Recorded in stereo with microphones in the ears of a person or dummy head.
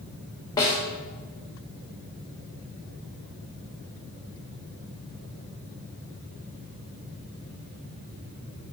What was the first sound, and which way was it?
A snare drum, 20° left (ahead or behind).